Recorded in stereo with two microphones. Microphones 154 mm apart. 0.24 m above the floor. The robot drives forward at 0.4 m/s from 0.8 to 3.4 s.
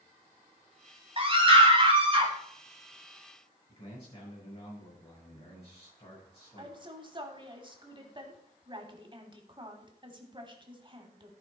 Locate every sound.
1.2 s a scream: 35° right (ahead or behind), 1.8 m; by 2.3 s 30° right (ahead or behind), 2.0 m
3.7 s a man speaking: 40° left (ahead or behind), 5 m
6.6 s a woman speaking: 30° right (ahead or behind), 1.3 m